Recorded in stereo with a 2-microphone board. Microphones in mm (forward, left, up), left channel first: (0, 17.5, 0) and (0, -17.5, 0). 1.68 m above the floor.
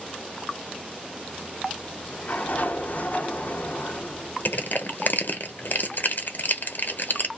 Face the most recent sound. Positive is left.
turn(degrees=60)  # may be behind; listen again after turning